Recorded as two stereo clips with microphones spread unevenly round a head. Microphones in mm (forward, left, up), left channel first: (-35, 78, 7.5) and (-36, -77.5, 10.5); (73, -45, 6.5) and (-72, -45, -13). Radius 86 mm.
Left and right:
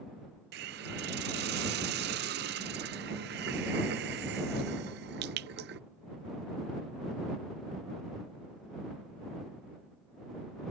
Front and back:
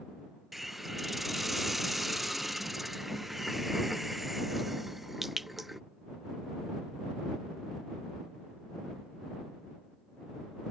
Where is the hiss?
85° right.